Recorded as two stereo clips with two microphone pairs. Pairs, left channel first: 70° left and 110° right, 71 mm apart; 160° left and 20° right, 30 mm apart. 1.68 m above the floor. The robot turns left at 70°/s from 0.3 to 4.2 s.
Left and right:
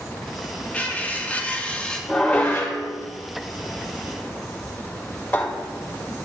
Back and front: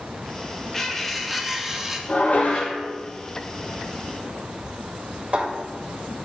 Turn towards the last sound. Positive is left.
turn(degrees=5)